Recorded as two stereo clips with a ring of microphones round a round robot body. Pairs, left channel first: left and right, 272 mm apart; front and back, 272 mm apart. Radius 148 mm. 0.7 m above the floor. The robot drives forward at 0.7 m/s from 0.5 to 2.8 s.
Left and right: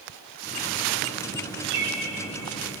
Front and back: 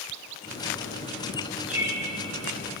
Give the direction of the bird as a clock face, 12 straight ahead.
3 o'clock.